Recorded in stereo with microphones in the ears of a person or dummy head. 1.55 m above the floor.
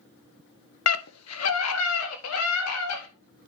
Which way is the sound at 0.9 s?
70° left (ahead or behind).